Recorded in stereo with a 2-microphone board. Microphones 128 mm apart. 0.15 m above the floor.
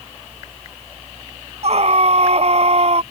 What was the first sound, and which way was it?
A scream, 55° right (ahead or behind).